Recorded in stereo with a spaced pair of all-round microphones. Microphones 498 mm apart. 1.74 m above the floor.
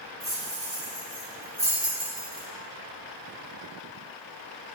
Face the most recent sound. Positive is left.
turn(degrees=-40)  # may be behind; listen again after turning